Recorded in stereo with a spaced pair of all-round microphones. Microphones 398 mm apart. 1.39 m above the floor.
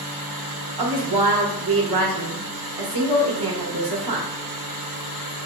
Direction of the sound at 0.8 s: 70° right (ahead or behind).